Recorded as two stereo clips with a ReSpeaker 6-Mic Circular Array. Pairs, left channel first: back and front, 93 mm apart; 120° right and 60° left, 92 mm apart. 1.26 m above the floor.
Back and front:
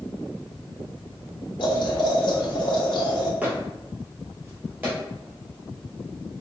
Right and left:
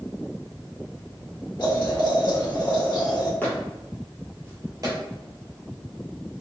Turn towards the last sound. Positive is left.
turn(degrees=60)